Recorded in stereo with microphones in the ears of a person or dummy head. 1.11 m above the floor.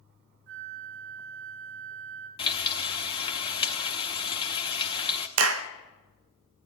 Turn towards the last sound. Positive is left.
turn(degrees=-85)